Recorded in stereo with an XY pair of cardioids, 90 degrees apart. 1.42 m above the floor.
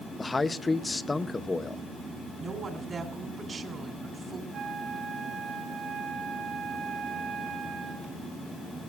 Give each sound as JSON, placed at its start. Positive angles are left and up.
{"t": 0.2, "sound": "a man speaking", "azimuth_deg": 25, "distance_m": 0.8}
{"t": 2.4, "sound": "a woman speaking", "azimuth_deg": -50, "distance_m": 2.5}
{"t": 4.5, "sound": "a flute", "azimuth_deg": -70, "distance_m": 6.5}